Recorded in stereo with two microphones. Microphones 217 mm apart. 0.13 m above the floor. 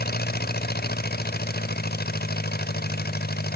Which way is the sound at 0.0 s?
45° left (ahead or behind).